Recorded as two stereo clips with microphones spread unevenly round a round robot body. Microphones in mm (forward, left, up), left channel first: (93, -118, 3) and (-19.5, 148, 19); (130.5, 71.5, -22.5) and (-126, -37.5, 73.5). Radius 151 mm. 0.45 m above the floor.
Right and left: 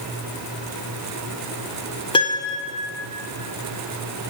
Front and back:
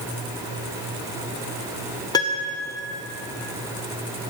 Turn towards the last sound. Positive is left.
turn(degrees=-10)